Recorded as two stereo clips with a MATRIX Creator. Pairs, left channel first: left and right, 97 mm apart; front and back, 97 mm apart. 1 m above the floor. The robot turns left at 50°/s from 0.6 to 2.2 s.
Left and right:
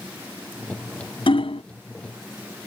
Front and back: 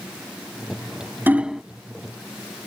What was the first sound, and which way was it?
Hammering, 110° left.